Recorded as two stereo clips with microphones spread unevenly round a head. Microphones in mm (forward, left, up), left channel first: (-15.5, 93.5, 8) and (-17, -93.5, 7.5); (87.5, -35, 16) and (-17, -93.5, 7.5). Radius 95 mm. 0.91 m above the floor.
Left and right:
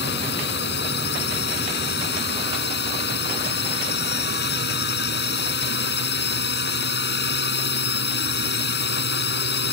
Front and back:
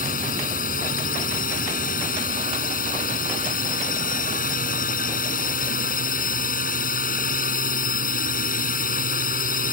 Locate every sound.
0.0 s a drone: 50° left